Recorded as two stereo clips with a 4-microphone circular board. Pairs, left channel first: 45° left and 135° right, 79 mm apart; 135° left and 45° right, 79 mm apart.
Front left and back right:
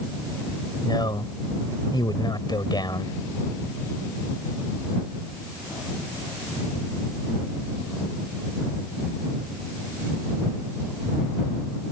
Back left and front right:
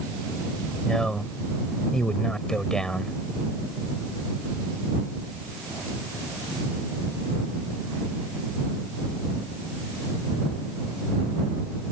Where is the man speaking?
55° left.